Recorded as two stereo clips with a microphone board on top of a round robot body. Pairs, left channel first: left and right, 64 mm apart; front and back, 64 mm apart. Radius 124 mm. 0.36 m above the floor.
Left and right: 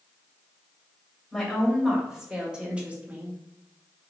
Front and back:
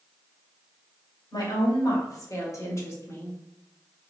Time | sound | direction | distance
1.3 | a woman speaking | 5° right | 2 m